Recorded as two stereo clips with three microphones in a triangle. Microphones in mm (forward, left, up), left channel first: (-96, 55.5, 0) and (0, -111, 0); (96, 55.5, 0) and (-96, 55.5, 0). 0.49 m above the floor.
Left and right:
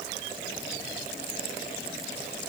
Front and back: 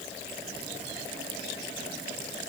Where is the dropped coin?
No dropped coin in this recording.